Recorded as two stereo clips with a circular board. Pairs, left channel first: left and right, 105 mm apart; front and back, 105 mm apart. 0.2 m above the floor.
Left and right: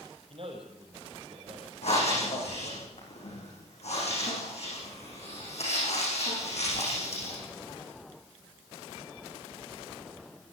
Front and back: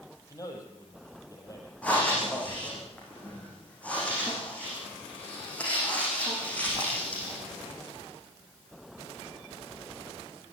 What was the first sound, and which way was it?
A man speaking, 60° right.